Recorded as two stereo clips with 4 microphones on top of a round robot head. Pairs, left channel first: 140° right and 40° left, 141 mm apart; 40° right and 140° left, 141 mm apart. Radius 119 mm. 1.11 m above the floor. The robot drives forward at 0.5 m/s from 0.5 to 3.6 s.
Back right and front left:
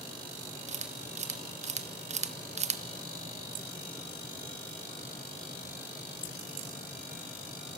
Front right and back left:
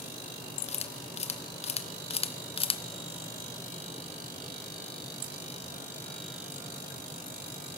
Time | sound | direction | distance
0.7 | a camera shutter | 5° left | 1.8 m